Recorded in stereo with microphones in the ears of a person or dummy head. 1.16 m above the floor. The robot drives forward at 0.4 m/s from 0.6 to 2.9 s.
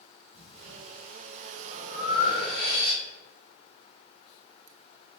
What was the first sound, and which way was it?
Breathing, 65° right (ahead or behind).